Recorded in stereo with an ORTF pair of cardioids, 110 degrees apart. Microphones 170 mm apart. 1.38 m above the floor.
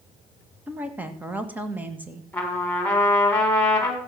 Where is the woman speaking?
10° right, 2.0 m.